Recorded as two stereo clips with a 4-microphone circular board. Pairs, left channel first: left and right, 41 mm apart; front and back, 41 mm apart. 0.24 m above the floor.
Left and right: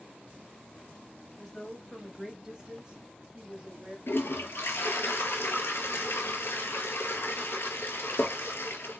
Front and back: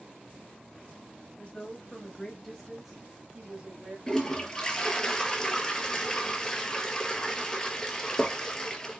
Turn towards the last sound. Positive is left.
turn(degrees=70)